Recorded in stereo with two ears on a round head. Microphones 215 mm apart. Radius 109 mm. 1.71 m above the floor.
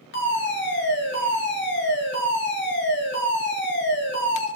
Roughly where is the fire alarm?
Left.